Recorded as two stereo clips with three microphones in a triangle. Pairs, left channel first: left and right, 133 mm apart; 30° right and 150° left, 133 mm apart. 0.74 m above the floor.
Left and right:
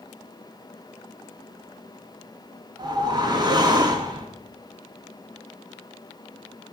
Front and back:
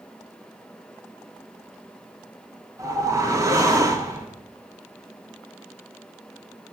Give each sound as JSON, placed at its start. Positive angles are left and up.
{"t": 2.8, "sound": "a whoosh", "azimuth_deg": -145, "distance_m": 1.4}